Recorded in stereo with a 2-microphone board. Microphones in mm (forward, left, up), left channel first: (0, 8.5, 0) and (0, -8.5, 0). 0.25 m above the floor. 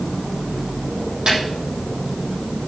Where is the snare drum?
65° right (ahead or behind), 9 m.